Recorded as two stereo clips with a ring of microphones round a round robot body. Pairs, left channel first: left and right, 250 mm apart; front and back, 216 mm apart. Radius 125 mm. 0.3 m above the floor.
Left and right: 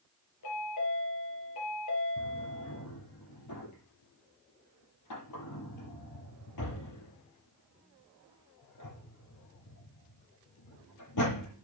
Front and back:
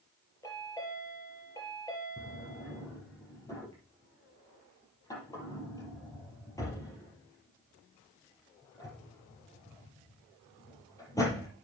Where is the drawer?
75° left, 5 m.